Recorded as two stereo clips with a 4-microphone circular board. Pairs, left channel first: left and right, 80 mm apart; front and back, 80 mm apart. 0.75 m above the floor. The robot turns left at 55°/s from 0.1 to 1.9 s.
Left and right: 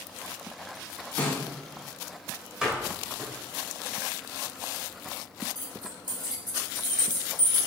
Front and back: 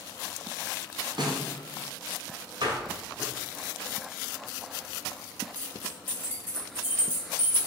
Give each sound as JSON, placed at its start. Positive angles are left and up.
{"t": 1.2, "sound": "a snare drum", "azimuth_deg": 165, "distance_m": 1.9}
{"t": 2.6, "sound": "a door slam", "azimuth_deg": -170, "distance_m": 1.9}
{"t": 5.5, "sound": "keys jangling", "azimuth_deg": -115, "distance_m": 4.0}